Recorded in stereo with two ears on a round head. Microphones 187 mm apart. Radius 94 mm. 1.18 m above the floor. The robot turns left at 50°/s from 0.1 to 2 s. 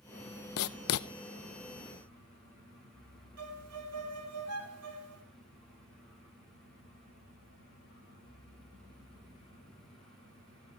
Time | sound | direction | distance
0.6 | writing | 80° left | 0.6 m
3.4 | a violin | 85° right | 2.5 m